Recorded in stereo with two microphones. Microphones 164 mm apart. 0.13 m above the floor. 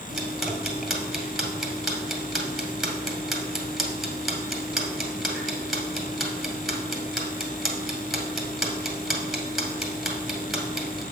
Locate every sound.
0.1 s ticking: centre (ahead or behind), 1.9 m